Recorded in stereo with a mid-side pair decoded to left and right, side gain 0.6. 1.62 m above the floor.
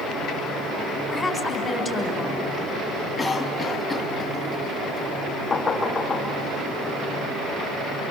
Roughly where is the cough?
Ahead.